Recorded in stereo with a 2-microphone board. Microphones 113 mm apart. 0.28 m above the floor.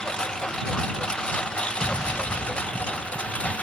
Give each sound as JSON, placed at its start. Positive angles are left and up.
{"t": 0.0, "sound": "a lawn mower", "side_deg": 10}
{"t": 1.8, "sound": "an explosion", "side_deg": 35}